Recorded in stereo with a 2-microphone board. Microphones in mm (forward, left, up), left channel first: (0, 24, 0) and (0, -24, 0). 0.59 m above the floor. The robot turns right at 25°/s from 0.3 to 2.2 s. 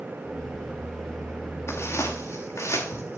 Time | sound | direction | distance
1.7 | footsteps | 60° left (ahead or behind) | 4.5 m